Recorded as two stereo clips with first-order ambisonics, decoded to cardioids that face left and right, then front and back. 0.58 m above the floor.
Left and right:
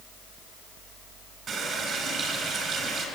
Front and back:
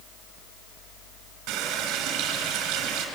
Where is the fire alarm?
I don't hear a fire alarm.